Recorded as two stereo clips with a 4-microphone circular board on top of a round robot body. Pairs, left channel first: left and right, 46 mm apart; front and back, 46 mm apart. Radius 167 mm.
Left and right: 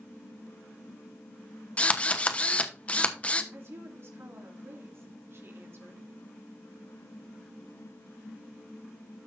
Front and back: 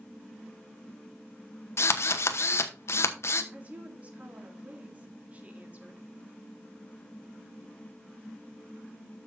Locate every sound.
1.8 s a drill: 25° left, 1.0 m
3.5 s a woman speaking: 120° right, 2 m